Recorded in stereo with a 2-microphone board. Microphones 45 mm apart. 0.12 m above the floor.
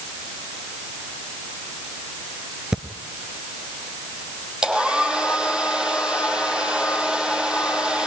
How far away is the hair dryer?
About 5 m.